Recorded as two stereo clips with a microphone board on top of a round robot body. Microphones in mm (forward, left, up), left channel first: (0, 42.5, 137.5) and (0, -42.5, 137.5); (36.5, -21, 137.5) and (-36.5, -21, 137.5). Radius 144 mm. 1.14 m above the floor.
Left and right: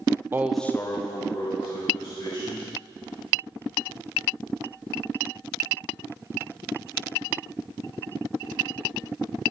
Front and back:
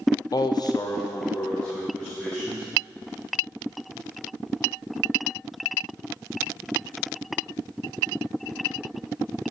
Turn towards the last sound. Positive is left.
turn(degrees=80)